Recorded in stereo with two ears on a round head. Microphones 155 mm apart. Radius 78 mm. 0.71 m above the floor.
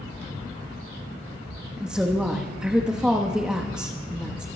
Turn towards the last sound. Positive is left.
turn(degrees=-5)  # may be behind; listen again after turning